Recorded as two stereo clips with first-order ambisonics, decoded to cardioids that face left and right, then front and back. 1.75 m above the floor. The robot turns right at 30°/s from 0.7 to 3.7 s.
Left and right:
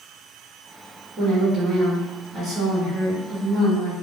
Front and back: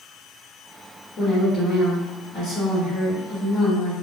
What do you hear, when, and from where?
1.2 s a woman speaking: 55° right, 1.1 m; by 3.9 s 20° left, 1.1 m